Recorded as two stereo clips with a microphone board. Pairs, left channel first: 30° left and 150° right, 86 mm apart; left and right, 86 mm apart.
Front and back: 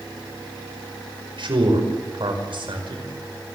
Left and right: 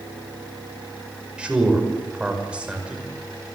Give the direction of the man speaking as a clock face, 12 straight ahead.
6 o'clock.